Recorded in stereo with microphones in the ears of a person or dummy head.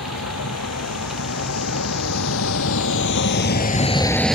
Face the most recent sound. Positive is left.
turn(degrees=-5)  # may be behind; listen again after turning